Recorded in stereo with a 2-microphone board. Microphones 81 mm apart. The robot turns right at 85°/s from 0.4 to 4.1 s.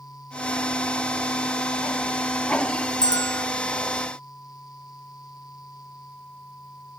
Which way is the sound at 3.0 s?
120° left.